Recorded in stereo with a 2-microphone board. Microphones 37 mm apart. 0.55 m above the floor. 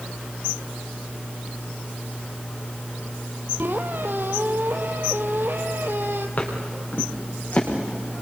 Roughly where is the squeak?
Right.